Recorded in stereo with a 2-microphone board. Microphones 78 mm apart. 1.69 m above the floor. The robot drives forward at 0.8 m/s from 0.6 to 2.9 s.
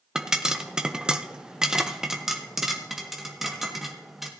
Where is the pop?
10° right (ahead or behind), 0.7 m; by 4.3 s 5° right (ahead or behind), 1.5 m.